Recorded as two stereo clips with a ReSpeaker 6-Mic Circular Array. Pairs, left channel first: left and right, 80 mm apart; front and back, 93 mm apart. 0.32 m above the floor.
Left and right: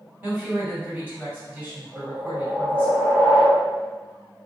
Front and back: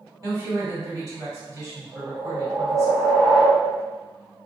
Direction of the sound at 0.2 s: 145° right.